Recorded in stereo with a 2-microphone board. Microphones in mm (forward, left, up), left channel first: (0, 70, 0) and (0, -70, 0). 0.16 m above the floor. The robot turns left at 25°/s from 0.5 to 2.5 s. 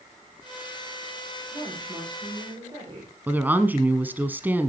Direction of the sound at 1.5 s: 10° right (ahead or behind).